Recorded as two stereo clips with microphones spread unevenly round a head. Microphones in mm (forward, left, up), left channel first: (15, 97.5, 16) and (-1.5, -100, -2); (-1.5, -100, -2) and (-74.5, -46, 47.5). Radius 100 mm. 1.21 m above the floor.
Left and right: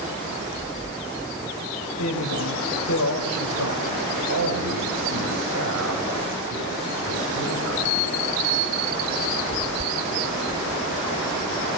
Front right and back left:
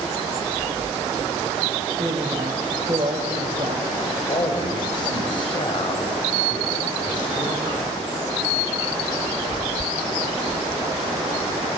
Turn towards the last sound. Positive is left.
turn(degrees=-75)